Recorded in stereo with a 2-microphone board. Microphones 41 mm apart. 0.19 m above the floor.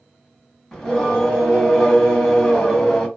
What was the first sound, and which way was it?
Singing, 10° left (ahead or behind).